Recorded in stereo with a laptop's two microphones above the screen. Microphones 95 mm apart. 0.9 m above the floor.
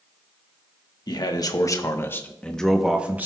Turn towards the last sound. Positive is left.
turn(degrees=-20)  # may be behind; listen again after turning